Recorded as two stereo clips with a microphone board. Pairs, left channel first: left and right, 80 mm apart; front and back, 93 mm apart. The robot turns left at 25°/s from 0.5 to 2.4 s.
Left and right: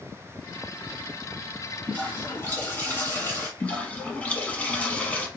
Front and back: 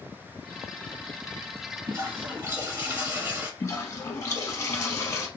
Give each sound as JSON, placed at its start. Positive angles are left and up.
{"t": 1.9, "sound": "a toilet flushing", "azimuth_deg": 150, "distance_m": 1.9}
{"t": 3.6, "sound": "a toilet flushing", "azimuth_deg": 30, "distance_m": 0.6}